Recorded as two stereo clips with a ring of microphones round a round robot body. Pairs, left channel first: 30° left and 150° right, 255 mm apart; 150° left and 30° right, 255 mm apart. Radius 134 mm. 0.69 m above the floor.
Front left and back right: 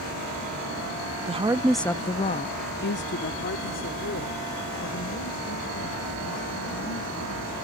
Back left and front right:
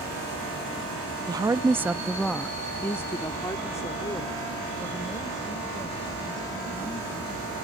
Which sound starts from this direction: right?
A woman speaking, at 1.3 s.